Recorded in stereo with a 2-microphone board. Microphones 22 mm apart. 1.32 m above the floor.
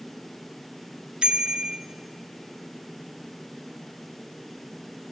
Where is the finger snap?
I don't hear a finger snap.